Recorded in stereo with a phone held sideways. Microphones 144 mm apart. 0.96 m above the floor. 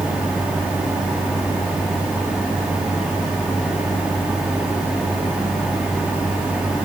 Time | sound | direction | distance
0.0 | a fan | 5° right (ahead or behind) | 2.5 m